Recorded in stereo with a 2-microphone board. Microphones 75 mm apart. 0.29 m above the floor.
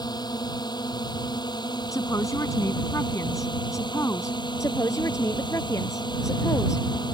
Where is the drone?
65° left (ahead or behind); by 7.1 s 75° left (ahead or behind).